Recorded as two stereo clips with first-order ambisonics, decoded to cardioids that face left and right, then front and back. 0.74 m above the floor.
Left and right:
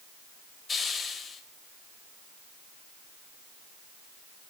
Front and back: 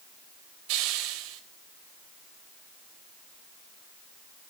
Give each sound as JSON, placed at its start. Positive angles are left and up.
{"t": 0.7, "sound": "a hiss", "azimuth_deg": 160, "distance_m": 2.5}